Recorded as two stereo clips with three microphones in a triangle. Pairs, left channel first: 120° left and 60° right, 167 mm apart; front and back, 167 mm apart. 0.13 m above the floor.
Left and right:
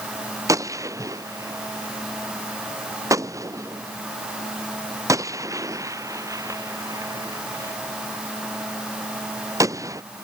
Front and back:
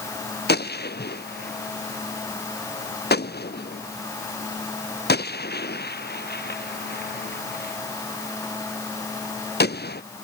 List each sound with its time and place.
0.5 s a gunshot: 10° left